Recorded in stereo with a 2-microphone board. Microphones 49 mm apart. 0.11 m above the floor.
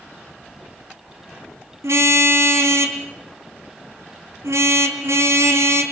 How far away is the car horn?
About 2.5 m.